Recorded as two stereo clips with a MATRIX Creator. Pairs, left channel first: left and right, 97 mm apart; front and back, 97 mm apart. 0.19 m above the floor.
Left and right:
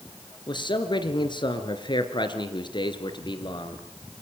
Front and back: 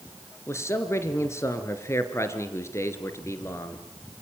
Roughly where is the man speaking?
Ahead left.